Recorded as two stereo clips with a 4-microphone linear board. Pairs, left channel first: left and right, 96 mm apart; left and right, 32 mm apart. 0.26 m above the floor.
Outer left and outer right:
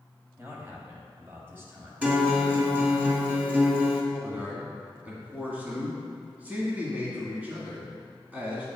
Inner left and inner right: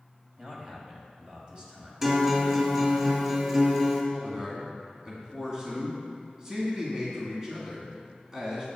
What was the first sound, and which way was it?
A man speaking, 25° right (ahead or behind).